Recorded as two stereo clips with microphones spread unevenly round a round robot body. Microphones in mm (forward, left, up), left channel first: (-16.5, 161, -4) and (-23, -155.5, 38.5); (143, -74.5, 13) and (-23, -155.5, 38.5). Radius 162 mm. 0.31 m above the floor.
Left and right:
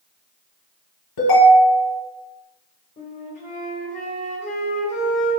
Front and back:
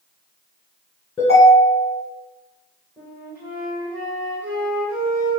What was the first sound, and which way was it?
A ringtone, 100° left.